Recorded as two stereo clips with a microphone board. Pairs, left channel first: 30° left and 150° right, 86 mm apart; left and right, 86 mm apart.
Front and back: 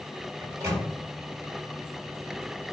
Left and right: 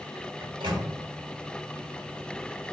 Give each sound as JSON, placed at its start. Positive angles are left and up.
{"t": 0.4, "sound": "a microwave", "azimuth_deg": -95, "distance_m": 1.5}